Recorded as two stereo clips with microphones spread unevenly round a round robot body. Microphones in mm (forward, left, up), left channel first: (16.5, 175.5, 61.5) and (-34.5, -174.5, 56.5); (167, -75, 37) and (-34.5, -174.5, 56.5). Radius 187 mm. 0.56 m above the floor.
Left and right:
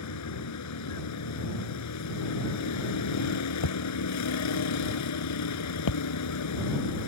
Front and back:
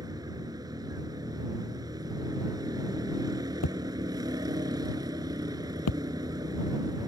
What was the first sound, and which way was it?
A vehicle, 125° left.